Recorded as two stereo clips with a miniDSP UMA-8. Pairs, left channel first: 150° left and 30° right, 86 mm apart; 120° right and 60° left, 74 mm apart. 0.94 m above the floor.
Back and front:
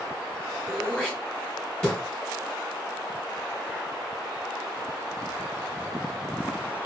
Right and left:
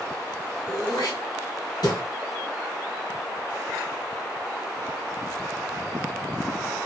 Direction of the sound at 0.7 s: 130° right.